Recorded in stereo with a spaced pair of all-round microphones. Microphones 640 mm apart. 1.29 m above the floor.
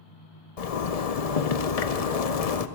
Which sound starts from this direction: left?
A zipper, at 0.6 s.